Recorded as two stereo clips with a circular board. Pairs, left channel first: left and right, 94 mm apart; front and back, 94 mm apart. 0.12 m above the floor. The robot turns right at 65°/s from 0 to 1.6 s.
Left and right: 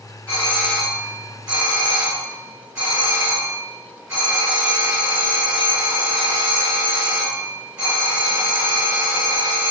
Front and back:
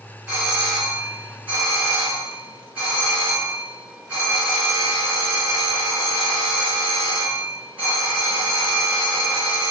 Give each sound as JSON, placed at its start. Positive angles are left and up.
{"t": 0.3, "sound": "a doorbell", "azimuth_deg": 135, "distance_m": 1.6}